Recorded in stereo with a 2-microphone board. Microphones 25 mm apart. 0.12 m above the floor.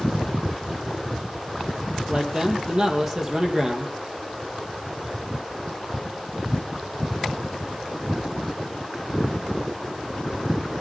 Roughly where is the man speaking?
Right.